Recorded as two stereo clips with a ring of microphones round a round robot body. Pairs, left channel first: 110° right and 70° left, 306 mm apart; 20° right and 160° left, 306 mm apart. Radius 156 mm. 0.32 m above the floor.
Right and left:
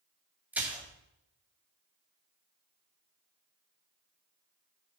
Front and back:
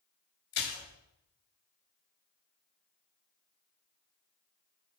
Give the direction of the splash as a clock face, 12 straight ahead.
1 o'clock.